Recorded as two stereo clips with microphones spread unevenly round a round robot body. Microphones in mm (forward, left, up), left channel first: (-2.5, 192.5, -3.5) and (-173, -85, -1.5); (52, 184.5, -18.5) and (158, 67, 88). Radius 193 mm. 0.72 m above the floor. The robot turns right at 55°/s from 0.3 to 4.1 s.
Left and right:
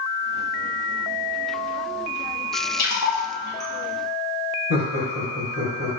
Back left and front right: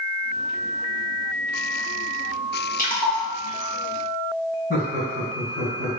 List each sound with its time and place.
2.8 s a splash: 105° left, 1.2 m; by 3.7 s 155° left, 1.2 m
4.7 s laughter: 165° left, 1.7 m